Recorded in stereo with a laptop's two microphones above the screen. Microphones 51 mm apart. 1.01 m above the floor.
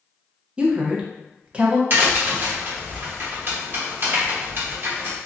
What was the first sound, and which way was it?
A woman speaking, 20° right (ahead or behind).